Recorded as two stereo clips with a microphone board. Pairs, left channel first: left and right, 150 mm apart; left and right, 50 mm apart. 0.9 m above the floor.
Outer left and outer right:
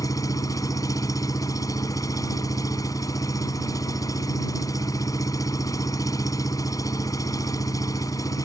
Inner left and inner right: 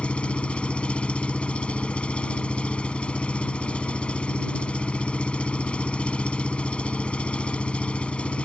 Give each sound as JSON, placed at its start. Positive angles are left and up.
{"t": 0.0, "sound": "an engine running", "side_deg": 25}